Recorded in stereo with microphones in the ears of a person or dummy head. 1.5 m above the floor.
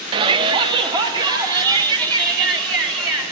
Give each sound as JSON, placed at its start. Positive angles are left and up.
{"t": 0.1, "sound": "a shout", "side_deg": -25, "distance_m": 0.6}